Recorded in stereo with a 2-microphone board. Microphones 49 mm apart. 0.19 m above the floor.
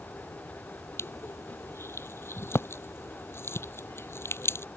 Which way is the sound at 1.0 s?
65° left (ahead or behind).